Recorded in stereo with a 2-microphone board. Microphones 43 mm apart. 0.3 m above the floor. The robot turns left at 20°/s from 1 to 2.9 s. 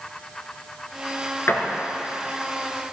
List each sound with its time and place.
1.5 s a door slam: 75° left (ahead or behind), 2.5 m